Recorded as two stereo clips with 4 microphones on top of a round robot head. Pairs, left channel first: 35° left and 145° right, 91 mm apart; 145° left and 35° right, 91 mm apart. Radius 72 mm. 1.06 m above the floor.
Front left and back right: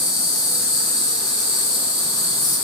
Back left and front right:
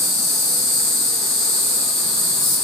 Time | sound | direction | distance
0.0 | an insect | 60° left | 1.8 m